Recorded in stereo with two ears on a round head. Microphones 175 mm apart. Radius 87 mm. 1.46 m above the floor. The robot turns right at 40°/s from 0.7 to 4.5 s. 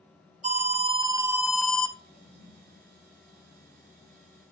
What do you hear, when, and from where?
0.4 s an alarm: 40° right, 2 m; by 1.9 s 10° left, 2 m
2.1 s a toilet flushing: 45° right (ahead or behind), 6.5 m; by 2.8 s 70° right (ahead or behind), 6.5 m